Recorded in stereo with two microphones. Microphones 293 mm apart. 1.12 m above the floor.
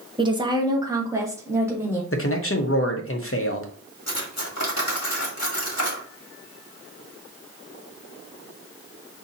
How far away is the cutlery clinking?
About 1.3 m.